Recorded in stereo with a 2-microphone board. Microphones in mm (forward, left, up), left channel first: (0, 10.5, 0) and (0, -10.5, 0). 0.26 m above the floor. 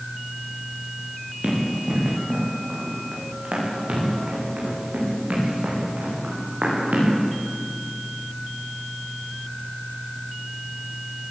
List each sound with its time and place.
1.4 s running footsteps: 60° right (ahead or behind), 7 m; by 7.1 s 75° right (ahead or behind), 9.5 m